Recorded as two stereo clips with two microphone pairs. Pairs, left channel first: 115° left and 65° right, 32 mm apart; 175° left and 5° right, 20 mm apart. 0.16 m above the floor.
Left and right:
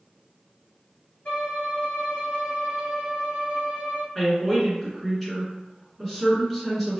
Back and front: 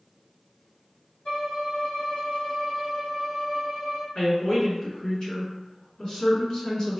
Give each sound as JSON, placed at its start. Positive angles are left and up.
{"t": 1.2, "sound": "a violin", "azimuth_deg": 155, "distance_m": 1.5}
{"t": 4.2, "sound": "a woman speaking", "azimuth_deg": -170, "distance_m": 2.0}